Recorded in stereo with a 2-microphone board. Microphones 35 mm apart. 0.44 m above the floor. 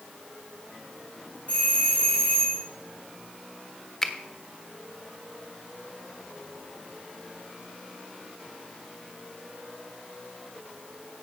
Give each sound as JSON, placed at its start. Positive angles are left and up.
{"t": 1.5, "sound": "a doorbell", "side_deg": 35, "distance_m": 5.0}
{"t": 4.0, "sound": "a finger snap", "side_deg": 10, "distance_m": 1.3}